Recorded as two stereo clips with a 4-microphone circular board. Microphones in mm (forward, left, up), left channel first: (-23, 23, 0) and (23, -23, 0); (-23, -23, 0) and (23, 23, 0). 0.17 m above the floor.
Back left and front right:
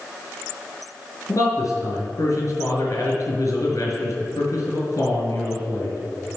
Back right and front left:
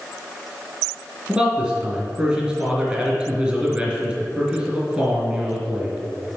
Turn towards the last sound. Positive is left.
turn(degrees=115)